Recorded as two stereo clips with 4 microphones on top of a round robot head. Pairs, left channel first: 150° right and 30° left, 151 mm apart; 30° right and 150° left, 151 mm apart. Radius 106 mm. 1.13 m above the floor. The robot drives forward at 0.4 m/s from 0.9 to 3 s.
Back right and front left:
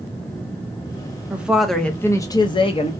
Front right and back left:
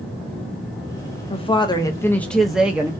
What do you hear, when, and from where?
1.3 s a woman speaking: 45° right, 0.7 m; by 2.9 s 140° right, 0.7 m